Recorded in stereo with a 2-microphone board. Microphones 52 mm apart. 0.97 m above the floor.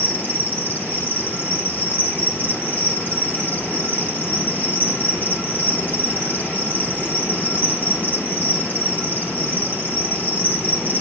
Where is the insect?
35° left (ahead or behind), 1.8 m.